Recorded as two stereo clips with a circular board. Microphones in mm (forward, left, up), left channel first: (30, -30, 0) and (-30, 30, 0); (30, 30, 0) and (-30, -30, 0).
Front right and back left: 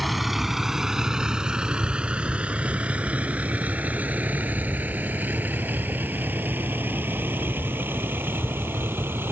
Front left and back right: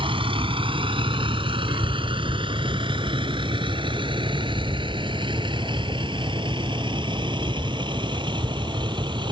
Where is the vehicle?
135° right; by 9.3 s 160° right.